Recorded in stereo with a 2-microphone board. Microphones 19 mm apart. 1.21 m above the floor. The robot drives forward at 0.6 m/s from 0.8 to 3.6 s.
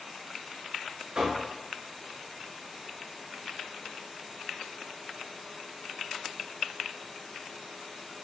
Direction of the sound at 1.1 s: 45° right (ahead or behind).